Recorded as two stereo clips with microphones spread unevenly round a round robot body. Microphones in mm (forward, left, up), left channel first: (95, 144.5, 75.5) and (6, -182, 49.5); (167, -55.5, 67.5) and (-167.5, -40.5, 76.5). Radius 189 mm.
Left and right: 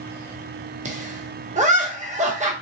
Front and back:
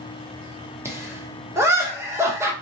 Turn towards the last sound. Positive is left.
turn(degrees=-105)